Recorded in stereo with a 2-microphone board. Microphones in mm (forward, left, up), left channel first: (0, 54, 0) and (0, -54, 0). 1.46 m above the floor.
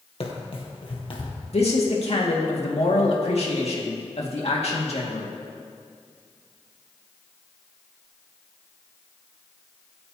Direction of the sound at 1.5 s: 65° left (ahead or behind).